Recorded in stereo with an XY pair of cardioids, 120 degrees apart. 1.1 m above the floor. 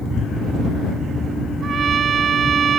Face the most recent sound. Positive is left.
turn(degrees=-45)